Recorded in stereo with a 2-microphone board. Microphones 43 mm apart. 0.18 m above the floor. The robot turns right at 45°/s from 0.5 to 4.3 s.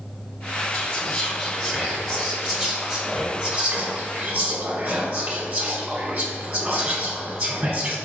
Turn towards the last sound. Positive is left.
turn(degrees=-20)  # may be behind; listen again after turning